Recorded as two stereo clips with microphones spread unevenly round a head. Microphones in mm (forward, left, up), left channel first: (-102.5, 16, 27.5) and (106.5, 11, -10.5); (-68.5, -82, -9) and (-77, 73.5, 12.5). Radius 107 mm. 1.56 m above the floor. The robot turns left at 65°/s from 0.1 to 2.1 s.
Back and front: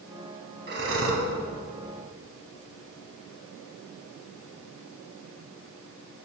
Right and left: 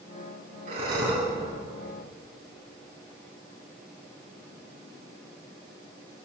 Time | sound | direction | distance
0.7 | breathing | 45° left | 3 m